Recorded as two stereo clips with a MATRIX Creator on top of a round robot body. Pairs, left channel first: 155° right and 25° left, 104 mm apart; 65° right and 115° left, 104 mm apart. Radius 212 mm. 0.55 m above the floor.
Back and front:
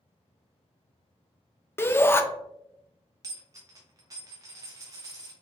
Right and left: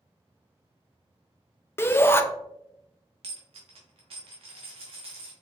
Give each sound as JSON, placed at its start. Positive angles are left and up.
{"t": 1.8, "sound": "a shout", "azimuth_deg": -110, "distance_m": 0.7}
{"t": 3.2, "sound": "a dropped coin", "azimuth_deg": 80, "distance_m": 0.5}